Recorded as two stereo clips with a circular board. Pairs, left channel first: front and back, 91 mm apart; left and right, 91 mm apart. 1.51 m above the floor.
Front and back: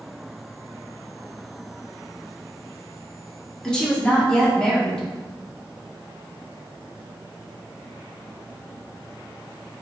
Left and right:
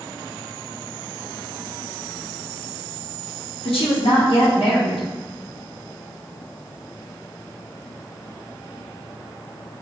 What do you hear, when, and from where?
3.6 s a woman speaking: 80° left, 1.0 m